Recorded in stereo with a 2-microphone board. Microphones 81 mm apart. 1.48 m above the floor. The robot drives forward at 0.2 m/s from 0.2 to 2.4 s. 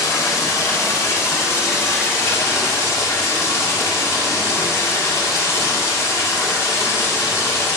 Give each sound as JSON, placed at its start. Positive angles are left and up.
{"t": 0.0, "sound": "running water", "side_deg": 45, "distance_m": 1.6}